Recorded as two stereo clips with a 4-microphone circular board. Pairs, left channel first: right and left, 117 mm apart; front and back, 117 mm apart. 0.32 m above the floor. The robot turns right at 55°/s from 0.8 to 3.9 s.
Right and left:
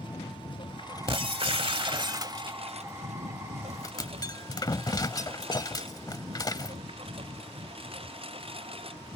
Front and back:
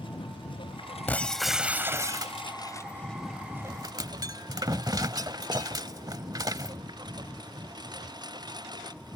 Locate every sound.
0.0 s a lawn mower: 45° right; by 9.2 s 125° left
1.1 s breaking glass: 70° left; by 6.8 s 135° right